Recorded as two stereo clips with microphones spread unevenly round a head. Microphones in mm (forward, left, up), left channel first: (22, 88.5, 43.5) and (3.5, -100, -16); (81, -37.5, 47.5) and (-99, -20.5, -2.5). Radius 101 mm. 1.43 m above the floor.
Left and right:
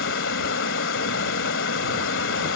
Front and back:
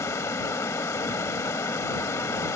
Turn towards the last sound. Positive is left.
turn(degrees=70)